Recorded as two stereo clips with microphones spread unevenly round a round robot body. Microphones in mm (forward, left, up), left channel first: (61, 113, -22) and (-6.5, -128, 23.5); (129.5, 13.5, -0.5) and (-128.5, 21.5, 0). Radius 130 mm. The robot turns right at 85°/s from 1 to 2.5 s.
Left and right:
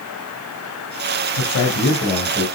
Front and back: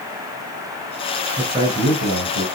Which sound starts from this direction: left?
A man speaking, at 1.4 s.